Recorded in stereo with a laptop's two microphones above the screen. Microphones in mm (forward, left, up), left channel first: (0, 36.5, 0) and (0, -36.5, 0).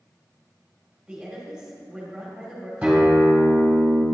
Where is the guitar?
10° right (ahead or behind), 2 m.